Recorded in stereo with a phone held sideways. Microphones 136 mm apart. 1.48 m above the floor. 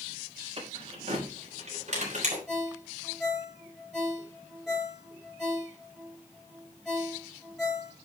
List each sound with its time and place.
0.6 s keys jangling: 45° right (ahead or behind), 4.5 m; by 2.4 s 60° right (ahead or behind), 4.5 m
2.5 s a ringtone: centre (ahead or behind), 5 m